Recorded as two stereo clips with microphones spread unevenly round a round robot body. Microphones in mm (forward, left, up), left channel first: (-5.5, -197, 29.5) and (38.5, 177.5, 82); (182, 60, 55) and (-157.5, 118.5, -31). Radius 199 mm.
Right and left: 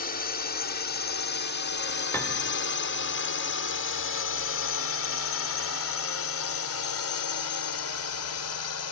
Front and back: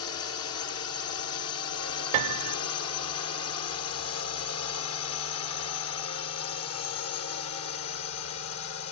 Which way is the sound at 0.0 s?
60° right.